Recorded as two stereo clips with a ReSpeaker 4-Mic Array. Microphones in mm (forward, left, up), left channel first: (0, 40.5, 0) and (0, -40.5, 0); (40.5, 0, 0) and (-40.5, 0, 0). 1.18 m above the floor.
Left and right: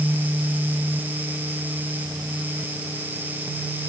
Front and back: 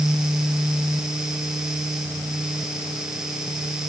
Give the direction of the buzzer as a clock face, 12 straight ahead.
No buzzer in this recording.